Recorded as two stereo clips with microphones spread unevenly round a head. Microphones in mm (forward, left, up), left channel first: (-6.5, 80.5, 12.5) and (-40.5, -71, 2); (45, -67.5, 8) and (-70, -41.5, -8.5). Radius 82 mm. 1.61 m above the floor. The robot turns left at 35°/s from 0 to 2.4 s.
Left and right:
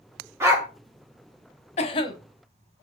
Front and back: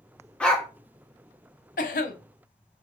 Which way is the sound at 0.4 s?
50° right.